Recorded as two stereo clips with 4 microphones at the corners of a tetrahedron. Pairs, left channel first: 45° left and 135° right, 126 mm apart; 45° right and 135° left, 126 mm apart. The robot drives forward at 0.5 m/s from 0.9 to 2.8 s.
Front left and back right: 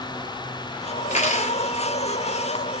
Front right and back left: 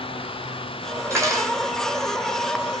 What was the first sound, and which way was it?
Cutlery clinking, 70° left.